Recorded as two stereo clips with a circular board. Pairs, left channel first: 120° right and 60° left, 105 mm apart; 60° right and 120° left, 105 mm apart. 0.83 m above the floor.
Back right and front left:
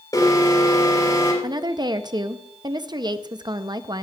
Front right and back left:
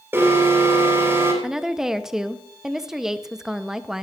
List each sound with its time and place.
0.1 s an alarm: 175° right, 3.5 m
1.4 s a woman speaking: 35° left, 0.6 m